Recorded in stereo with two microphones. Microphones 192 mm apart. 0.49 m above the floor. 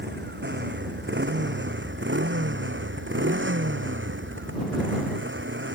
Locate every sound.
0.0 s a motorcycle: 65° right (ahead or behind); by 5.8 s 80° right